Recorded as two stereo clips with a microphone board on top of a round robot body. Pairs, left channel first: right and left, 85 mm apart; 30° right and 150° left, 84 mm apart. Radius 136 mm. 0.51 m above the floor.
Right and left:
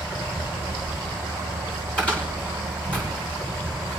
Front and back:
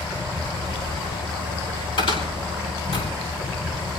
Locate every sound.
0.0 s an insect: 30° right, 2.5 m
2.0 s a cupboard door: 15° right, 6.5 m